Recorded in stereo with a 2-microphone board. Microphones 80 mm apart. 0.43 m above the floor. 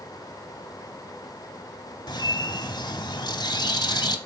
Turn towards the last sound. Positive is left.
turn(degrees=65)  # may be behind; listen again after turning